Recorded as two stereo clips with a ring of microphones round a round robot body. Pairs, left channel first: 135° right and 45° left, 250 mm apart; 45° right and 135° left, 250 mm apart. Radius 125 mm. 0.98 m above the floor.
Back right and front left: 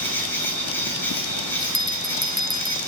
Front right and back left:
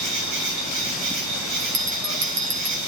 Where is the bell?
135° left, 2.5 m.